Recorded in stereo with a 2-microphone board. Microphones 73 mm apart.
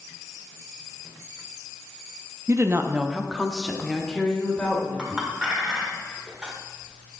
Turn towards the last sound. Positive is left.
turn(degrees=-10)  # may be behind; listen again after turning